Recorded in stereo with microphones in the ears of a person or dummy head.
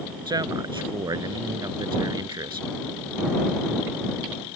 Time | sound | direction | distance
0.3 | a man speaking | 15° right (ahead or behind) | ?